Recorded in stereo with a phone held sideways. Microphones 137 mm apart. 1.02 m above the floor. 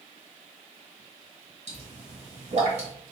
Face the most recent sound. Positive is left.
turn(degrees=-55)  # may be behind; listen again after turning